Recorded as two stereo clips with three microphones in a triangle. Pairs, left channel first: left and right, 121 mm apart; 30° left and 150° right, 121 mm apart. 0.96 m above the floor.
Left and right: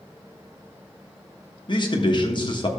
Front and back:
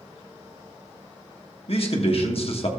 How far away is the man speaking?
About 1.3 m.